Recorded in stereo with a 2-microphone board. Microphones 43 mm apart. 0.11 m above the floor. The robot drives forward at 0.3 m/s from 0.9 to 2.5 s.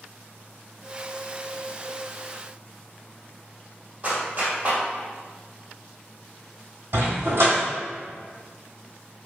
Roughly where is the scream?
I don't hear a scream.